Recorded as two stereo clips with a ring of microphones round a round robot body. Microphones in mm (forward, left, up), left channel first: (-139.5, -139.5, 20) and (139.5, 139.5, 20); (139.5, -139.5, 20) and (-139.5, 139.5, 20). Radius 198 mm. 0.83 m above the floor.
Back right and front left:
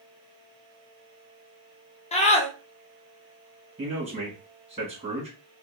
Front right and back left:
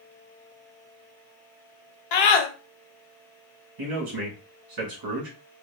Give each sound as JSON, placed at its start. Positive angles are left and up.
{"t": 2.1, "sound": "a scream", "azimuth_deg": -60, "distance_m": 0.8}
{"t": 3.8, "sound": "a man speaking", "azimuth_deg": 115, "distance_m": 1.6}